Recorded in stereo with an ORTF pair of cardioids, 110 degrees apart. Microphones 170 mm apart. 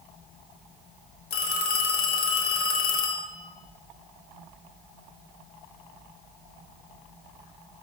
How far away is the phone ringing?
About 0.9 m.